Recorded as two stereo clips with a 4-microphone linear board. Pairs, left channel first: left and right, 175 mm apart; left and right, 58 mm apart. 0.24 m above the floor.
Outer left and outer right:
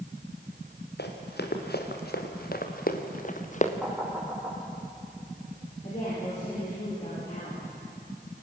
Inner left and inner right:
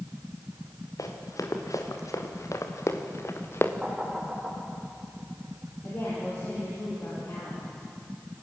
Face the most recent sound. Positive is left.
turn(degrees=40)  # may be behind; listen again after turning